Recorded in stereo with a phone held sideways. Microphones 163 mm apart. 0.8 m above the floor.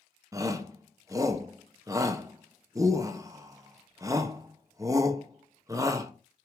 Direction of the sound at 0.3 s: 20° right (ahead or behind).